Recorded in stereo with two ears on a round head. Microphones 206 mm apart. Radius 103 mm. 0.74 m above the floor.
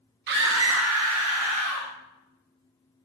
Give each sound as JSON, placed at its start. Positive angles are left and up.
{"t": 0.3, "sound": "a scream", "side_deg": -45, "distance_m": 0.8}